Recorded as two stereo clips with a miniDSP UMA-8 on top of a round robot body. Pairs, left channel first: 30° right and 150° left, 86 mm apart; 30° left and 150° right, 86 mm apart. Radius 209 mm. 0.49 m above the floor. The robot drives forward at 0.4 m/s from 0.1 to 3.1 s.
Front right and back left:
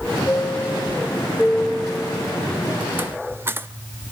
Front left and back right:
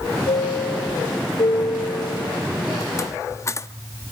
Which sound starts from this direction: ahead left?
A chime, at 0.3 s.